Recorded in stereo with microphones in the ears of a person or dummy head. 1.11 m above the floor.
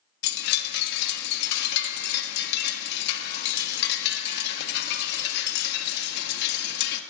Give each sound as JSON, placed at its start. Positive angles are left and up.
{"t": 0.2, "sound": "a chime", "side_deg": 60, "distance_m": 1.4}